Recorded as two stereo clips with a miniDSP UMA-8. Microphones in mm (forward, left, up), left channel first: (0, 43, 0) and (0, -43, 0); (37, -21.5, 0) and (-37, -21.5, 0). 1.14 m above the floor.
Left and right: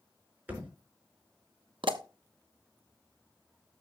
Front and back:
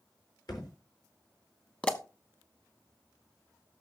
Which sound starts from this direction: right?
A pop, at 1.8 s.